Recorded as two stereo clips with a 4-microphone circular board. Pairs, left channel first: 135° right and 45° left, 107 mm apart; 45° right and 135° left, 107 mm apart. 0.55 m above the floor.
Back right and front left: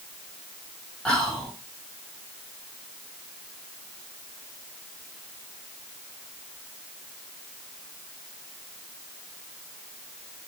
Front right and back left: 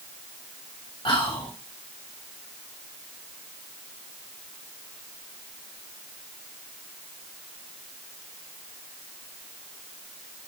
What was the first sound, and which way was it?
Whispering, 55° right.